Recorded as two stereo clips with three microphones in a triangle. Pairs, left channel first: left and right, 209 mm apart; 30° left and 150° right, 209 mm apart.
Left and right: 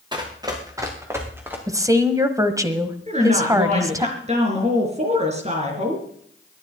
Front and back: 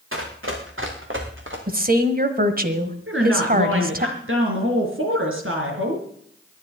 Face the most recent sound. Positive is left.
turn(degrees=-145)